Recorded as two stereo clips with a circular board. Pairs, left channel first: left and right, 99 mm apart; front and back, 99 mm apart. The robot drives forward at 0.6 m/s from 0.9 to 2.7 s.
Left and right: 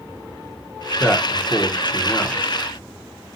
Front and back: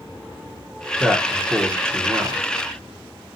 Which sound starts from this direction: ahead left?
A man speaking, at 1.0 s.